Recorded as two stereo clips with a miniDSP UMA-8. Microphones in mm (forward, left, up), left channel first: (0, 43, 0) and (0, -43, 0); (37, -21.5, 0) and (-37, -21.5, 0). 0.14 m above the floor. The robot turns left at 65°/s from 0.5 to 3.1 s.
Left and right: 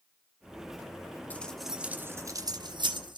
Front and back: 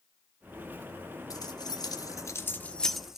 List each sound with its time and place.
1.3 s keys jangling: 20° left, 1.4 m; by 3.2 s 95° right, 1.4 m